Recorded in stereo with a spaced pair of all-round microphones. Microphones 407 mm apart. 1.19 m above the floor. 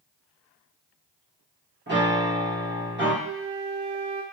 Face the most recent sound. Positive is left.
turn(degrees=-70)  # may be behind; listen again after turning